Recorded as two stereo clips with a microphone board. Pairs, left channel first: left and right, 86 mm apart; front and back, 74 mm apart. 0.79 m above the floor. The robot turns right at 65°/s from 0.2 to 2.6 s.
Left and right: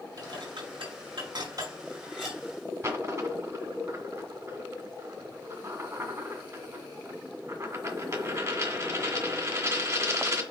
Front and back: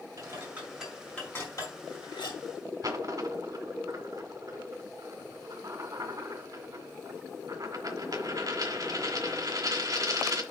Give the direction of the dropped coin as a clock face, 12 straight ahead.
5 o'clock.